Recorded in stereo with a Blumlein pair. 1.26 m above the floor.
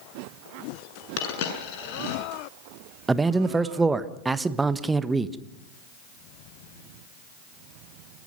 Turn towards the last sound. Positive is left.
turn(degrees=-10)